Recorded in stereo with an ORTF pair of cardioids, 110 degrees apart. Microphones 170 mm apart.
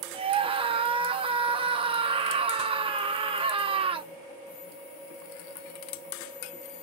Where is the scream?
35° right, 0.6 m.